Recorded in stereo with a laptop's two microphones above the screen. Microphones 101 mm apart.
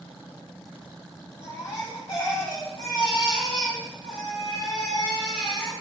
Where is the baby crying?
50° left (ahead or behind), 2.5 m.